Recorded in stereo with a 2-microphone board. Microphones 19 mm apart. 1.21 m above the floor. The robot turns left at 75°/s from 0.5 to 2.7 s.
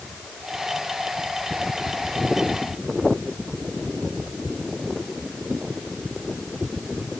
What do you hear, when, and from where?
Only background noise.